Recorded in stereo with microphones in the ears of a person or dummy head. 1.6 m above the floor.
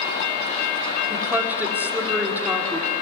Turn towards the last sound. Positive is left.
turn(degrees=-5)  # may be behind; listen again after turning